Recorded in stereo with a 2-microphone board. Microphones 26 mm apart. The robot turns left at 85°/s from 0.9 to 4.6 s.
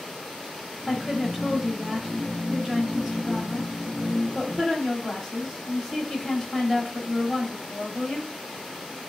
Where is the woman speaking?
10° left (ahead or behind), 1.0 m; by 8.3 s 20° left (ahead or behind), 1.0 m.